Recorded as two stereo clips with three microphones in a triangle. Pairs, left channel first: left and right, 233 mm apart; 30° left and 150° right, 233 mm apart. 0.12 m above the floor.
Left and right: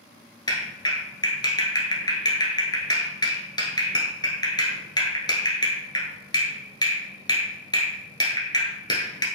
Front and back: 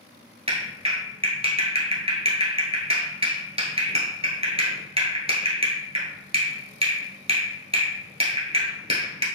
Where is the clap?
155° left, 1.2 m.